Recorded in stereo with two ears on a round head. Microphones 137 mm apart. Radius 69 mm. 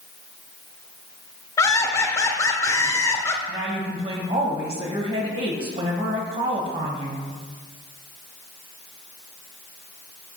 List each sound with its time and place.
1.6 s laughter: 20° left (ahead or behind), 0.8 m
3.5 s a woman speaking: 35° right (ahead or behind), 1.6 m